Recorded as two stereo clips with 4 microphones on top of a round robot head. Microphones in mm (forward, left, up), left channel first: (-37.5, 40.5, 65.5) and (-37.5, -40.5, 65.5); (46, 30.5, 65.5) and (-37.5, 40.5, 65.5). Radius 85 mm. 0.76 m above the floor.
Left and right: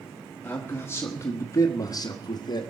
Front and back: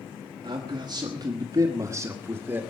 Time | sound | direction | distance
0.4 | a man speaking | 155° left | 1.8 m